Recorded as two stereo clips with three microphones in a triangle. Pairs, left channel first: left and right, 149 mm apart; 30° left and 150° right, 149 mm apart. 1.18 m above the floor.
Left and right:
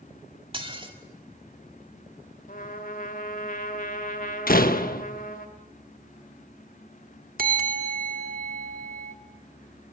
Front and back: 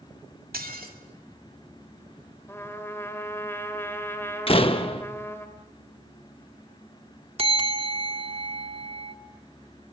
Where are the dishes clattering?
145° right, 2 m.